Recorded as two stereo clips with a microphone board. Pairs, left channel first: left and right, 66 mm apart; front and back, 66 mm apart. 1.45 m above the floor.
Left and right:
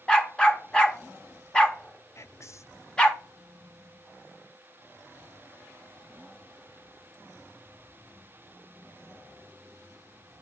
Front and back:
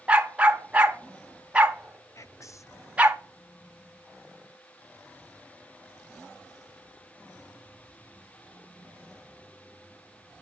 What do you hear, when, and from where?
0.1 s a dog barking: 140° left, 0.9 m
2.1 s whispering: 40° left, 0.7 m